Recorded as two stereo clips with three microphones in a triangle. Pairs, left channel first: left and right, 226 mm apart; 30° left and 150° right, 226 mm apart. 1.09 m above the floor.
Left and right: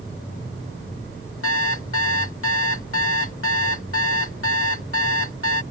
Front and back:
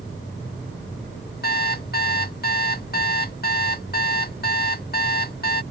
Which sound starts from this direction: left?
An alarm clock, at 1.4 s.